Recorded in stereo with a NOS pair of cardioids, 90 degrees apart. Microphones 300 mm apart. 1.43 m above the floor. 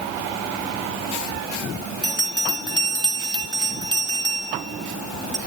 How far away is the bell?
About 2.5 m.